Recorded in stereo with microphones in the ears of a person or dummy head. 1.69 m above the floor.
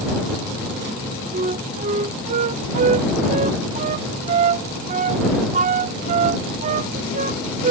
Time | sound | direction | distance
1.3 | a flute | 40° right (ahead or behind) | ?